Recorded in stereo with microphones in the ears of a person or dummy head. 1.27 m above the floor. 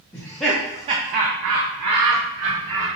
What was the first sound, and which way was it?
Laughter, 10° left (ahead or behind).